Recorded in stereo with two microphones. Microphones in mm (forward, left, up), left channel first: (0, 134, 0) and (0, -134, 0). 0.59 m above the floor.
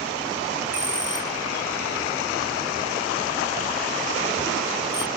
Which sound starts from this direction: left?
A bell, at 0.7 s.